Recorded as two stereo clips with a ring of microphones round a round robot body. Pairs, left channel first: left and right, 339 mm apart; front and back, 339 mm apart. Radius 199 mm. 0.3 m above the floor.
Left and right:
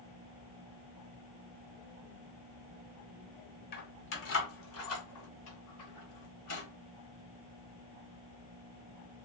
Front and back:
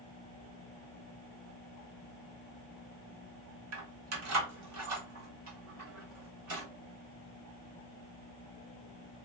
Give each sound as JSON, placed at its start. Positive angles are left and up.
{"t": 3.7, "sound": "keys jangling", "azimuth_deg": 145, "distance_m": 0.9}